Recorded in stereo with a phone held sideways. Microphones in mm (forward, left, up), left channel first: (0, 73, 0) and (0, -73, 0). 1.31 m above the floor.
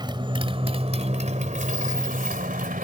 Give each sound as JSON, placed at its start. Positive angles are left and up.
{"t": 0.0, "sound": "a motorcycle", "side_deg": -30}